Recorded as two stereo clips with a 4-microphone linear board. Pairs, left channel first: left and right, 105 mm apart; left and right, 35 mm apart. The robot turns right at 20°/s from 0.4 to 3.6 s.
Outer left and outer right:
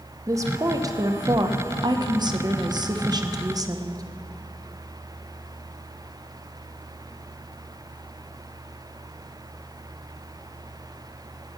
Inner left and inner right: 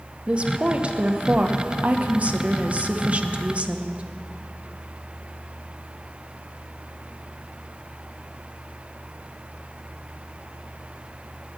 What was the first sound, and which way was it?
A woman speaking, 130° right.